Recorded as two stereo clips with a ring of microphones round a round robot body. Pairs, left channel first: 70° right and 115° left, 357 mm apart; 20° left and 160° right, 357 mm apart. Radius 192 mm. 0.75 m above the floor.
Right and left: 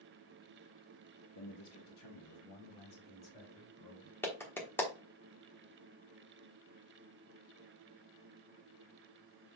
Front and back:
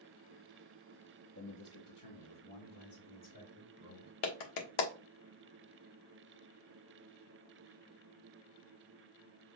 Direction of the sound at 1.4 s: 30° right.